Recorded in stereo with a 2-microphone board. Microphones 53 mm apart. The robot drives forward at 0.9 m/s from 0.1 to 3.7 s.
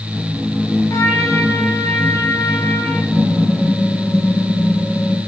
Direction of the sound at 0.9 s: 70° left (ahead or behind).